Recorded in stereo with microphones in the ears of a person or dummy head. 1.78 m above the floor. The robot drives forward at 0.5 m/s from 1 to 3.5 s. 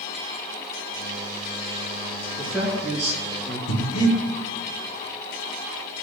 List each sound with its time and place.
2.4 s a man speaking: centre (ahead or behind), 3.5 m
3.7 s breathing: 85° left, 2.5 m